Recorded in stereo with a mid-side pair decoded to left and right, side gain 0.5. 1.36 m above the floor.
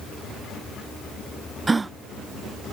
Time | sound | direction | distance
1.7 | a gasp | 25° right | ?